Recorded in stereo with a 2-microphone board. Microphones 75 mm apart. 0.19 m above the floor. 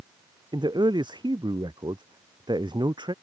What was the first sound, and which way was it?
A man speaking, 85° right.